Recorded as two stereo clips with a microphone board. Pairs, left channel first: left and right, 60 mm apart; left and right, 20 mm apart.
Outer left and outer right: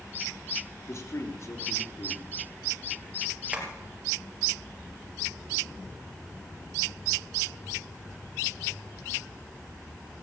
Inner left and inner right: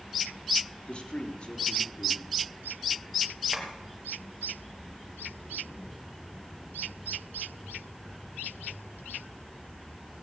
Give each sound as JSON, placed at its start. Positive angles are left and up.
{"t": 0.9, "sound": "a man speaking", "side_deg": 50, "distance_m": 3.5}
{"t": 3.5, "sound": "tapping", "side_deg": -20, "distance_m": 3.0}